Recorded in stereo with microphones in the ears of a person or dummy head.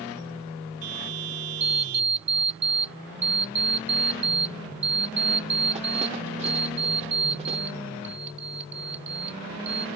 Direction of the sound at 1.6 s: 35° right (ahead or behind).